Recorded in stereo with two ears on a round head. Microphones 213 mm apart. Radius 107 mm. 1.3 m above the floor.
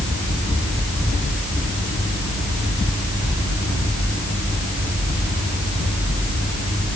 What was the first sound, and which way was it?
Only background noise.